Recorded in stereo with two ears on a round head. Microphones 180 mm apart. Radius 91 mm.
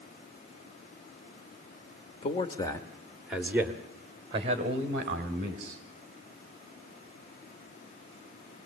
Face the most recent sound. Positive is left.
turn(degrees=-45)  # may be behind; listen again after turning